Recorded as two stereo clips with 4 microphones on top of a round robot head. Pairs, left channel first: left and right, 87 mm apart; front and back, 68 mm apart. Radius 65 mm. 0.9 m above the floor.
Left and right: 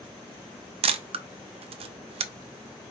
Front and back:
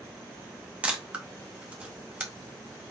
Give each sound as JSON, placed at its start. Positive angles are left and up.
{"t": 0.8, "sound": "a camera shutter", "azimuth_deg": -105, "distance_m": 0.6}